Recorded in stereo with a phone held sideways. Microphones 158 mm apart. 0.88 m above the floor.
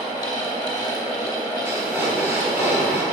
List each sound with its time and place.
0.0 s a fan: 25° left (ahead or behind), 1.4 m
1.6 s breathing: 15° right (ahead or behind), 1.4 m